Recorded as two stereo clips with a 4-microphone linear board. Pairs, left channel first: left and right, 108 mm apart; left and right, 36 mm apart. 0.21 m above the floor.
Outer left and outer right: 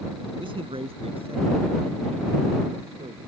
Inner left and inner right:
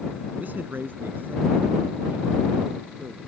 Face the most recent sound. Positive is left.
turn(degrees=-65)  # may be behind; listen again after turning